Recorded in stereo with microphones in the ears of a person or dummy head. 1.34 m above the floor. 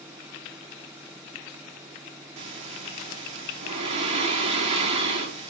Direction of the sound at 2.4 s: 30° right (ahead or behind).